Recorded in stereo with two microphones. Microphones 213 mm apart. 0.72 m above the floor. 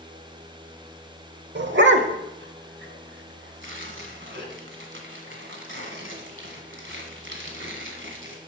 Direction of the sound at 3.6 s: 80° right.